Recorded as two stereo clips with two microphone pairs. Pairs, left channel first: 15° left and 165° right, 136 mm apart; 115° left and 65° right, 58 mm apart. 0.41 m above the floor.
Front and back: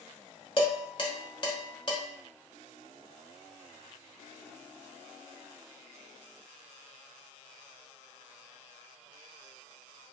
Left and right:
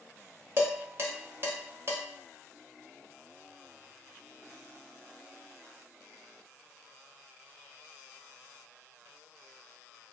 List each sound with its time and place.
0.6 s dishes clattering: 30° right, 0.9 m